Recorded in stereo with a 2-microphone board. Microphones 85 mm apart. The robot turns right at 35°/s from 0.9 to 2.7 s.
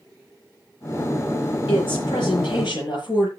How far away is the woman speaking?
About 8.5 m.